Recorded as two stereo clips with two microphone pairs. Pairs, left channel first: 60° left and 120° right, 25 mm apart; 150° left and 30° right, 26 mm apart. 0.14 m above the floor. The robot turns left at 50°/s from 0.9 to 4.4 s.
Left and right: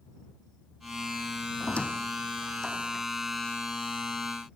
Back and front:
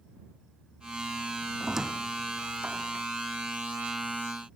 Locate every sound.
1.6 s a squeak: 40° left; by 3.0 s 30° right